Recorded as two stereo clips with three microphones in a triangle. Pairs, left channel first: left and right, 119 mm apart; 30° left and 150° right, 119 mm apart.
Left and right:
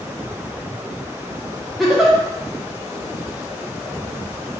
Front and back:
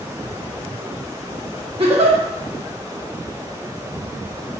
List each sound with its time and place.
1.8 s a giggle: straight behind, 1.0 m